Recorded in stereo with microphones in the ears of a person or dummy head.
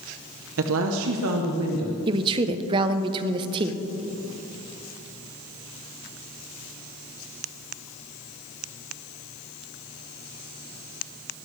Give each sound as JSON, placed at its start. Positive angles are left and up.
{"t": 0.6, "sound": "a woman speaking", "side_deg": -70, "distance_m": 0.9}
{"t": 2.1, "sound": "a woman speaking", "side_deg": -25, "distance_m": 0.8}